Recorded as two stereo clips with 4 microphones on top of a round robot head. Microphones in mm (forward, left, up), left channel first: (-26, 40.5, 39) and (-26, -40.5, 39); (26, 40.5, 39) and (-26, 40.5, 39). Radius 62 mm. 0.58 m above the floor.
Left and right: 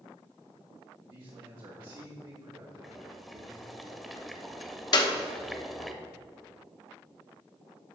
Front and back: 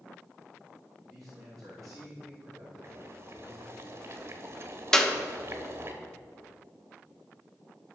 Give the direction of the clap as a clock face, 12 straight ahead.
9 o'clock.